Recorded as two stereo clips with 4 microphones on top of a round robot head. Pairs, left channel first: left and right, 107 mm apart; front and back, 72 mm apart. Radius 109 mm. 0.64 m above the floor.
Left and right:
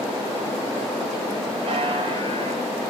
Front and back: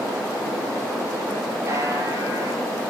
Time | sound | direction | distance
1.7 | a buzzer | 125° right | 5 m